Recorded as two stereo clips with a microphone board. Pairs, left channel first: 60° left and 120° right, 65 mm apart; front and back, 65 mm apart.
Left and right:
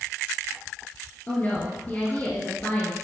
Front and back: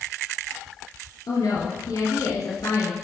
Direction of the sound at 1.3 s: Straight ahead.